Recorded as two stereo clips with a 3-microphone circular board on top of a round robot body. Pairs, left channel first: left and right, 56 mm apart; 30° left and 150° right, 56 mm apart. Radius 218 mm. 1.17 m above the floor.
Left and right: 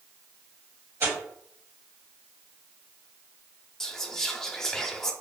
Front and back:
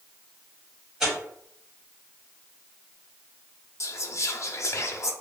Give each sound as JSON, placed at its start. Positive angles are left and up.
{"t": 1.0, "sound": "tearing paper", "azimuth_deg": -70, "distance_m": 1.7}
{"t": 3.8, "sound": "whispering", "azimuth_deg": 10, "distance_m": 0.8}